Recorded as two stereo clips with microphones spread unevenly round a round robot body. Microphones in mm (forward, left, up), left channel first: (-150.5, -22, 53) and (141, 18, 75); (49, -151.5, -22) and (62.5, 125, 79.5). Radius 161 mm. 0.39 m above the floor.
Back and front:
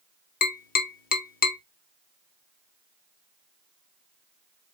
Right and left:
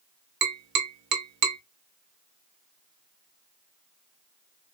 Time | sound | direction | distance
0.4 | tapping | 145° left | 0.7 m